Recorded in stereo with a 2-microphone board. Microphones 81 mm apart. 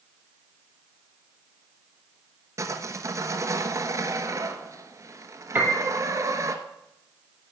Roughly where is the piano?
Right.